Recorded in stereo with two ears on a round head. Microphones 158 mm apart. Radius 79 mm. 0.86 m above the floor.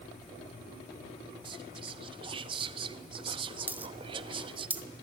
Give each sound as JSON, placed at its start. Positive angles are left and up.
{"t": 1.4, "sound": "whispering", "side_deg": -30, "distance_m": 0.9}
{"t": 3.7, "sound": "a dropped coin", "side_deg": -10, "distance_m": 0.9}